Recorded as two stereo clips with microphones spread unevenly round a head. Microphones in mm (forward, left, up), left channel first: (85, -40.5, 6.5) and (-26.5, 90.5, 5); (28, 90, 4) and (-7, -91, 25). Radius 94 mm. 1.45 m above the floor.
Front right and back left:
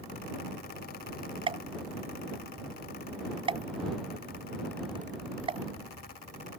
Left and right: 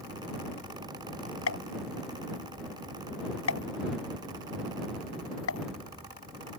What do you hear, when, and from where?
1.5 s a pop: 70° left